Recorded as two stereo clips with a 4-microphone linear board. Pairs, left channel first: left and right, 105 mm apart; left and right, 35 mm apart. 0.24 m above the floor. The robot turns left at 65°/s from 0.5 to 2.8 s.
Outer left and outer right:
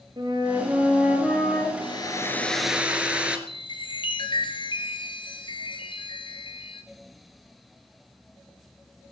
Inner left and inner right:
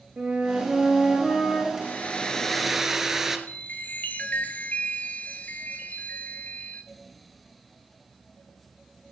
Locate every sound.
0.2 s a flute: 130° right, 4.5 m; by 1.7 s 150° left, 4.5 m
1.8 s a hair dryer: 55° left, 1.8 m; by 3.4 s 10° right, 1.8 m
3.5 s a chime: 50° left (ahead or behind), 1.9 m